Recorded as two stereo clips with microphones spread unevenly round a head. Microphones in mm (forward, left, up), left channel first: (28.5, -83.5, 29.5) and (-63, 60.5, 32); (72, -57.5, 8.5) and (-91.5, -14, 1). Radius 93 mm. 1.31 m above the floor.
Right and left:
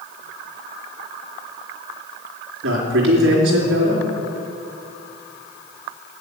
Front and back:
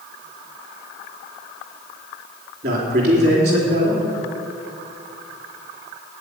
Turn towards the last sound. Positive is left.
turn(degrees=120)